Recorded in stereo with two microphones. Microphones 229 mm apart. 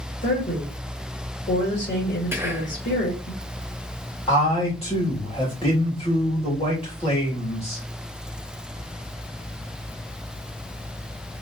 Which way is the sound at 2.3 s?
10° right (ahead or behind).